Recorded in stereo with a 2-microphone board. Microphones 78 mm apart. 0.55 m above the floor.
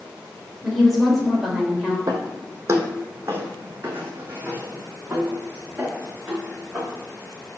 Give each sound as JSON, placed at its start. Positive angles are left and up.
{"t": 0.6, "sound": "a woman speaking", "side_deg": 0, "distance_m": 2.5}
{"t": 2.1, "sound": "footsteps", "side_deg": -50, "distance_m": 1.2}